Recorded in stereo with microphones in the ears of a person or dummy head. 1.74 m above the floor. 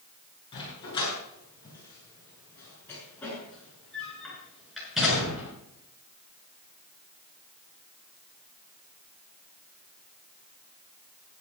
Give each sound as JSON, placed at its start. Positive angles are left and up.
{"t": 0.5, "sound": "a dog barking", "side_deg": 30, "distance_m": 9.5}